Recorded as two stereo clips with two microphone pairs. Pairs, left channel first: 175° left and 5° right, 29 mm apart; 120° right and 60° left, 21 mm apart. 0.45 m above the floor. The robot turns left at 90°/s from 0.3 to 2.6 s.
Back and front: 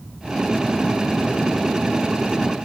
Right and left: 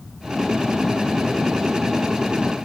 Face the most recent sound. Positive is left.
No sound to turn to.